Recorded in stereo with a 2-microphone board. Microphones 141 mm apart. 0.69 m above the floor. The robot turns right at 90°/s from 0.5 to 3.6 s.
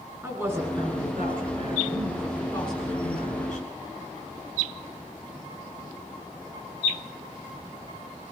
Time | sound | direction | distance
0.2 | a woman speaking | 165° right | 6.5 m